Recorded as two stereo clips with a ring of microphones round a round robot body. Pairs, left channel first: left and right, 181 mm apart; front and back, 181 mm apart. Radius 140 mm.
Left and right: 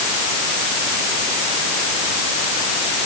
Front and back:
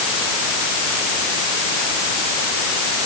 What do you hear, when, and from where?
Only background noise.